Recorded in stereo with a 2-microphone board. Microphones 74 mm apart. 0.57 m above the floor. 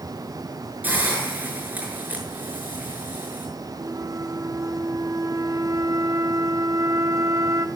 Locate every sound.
0.8 s a hiss: 25° right (ahead or behind), 6.5 m
3.8 s a flute: 55° right (ahead or behind), 1.7 m